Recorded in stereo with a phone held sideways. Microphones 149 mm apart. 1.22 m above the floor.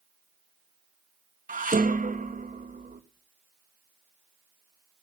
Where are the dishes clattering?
65° right (ahead or behind), 1.1 m.